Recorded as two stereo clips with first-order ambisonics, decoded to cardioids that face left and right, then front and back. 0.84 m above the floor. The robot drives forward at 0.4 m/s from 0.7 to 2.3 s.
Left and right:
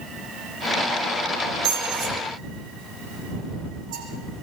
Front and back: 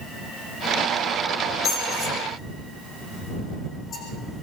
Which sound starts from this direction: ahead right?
A squeak, at 1.6 s.